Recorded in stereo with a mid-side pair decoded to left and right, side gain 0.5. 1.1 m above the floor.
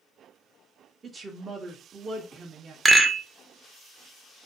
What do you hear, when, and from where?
1.0 s a woman speaking: 35° right, 0.6 m
2.9 s a rattle: 15° right, 0.5 m